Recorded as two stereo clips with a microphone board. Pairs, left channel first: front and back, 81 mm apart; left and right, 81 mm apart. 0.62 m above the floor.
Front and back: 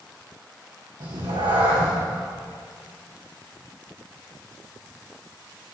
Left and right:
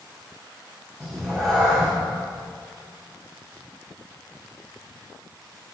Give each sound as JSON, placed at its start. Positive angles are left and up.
{"t": 1.0, "sound": "a cat meowing", "azimuth_deg": 175, "distance_m": 4.0}